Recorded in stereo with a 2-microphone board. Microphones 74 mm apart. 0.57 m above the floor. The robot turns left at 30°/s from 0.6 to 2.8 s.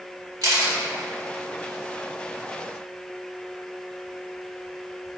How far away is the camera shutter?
About 1.0 m.